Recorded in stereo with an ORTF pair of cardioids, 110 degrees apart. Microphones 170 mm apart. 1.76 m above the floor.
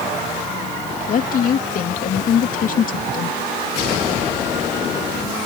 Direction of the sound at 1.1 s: 55° left.